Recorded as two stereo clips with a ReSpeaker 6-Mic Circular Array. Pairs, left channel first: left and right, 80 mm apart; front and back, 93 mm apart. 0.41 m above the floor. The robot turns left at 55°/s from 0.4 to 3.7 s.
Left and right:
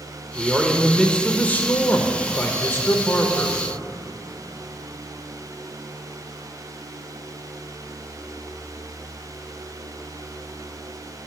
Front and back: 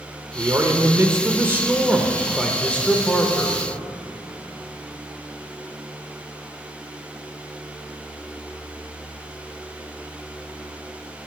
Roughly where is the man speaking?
Behind.